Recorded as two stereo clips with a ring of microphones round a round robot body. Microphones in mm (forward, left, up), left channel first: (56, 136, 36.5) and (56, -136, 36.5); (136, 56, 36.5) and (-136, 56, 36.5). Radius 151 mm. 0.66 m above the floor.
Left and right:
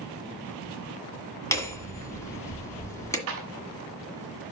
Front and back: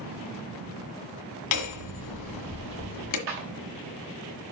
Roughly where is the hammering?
Ahead.